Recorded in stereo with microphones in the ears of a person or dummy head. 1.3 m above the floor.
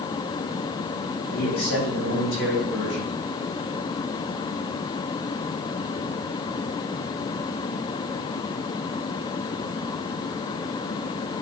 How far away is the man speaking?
About 3.5 m.